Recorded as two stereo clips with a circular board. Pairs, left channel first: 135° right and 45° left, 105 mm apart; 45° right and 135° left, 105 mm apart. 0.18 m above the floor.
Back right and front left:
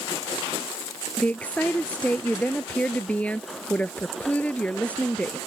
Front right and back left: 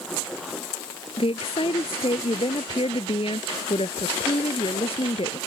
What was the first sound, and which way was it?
A woman speaking, 60° right.